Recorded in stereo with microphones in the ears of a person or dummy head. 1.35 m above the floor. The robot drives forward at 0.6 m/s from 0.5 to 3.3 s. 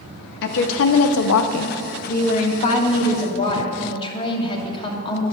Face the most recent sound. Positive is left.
turn(degrees=25)  # may be behind; listen again after turning